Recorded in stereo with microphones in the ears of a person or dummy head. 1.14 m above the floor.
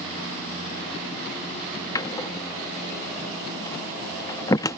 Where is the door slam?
20° left (ahead or behind).